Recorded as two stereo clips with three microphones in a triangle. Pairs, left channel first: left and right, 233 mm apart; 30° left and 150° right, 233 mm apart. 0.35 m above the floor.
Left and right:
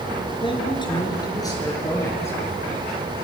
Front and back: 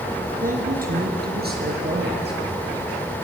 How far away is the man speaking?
About 4 m.